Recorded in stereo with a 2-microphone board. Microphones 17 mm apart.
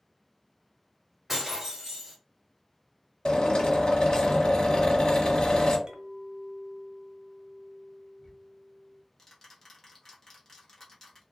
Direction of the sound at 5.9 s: 60° right (ahead or behind).